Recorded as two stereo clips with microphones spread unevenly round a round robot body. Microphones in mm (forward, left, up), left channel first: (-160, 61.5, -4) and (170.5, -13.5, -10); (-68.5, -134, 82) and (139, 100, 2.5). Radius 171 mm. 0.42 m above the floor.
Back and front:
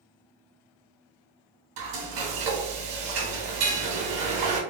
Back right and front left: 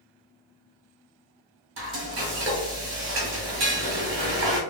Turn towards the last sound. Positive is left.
turn(degrees=0)